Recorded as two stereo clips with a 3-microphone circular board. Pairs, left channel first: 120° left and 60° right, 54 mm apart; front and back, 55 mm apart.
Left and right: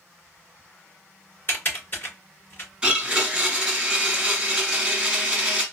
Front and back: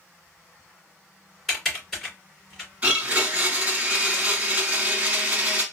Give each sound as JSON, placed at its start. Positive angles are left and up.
{"t": 1.5, "sound": "typing on a keyboard", "azimuth_deg": 85, "distance_m": 3.0}
{"t": 2.8, "sound": "a blender", "azimuth_deg": -125, "distance_m": 1.2}